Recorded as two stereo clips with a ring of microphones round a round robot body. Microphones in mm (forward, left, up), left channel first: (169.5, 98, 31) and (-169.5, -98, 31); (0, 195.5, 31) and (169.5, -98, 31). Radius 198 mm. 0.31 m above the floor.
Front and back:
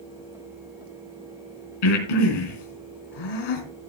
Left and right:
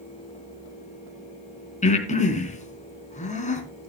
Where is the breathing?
50° left, 3.5 m.